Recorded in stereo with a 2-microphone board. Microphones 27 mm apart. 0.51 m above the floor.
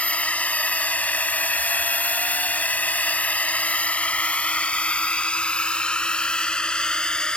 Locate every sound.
0.0 s a drone: 50° left (ahead or behind); by 7.4 s 30° left (ahead or behind)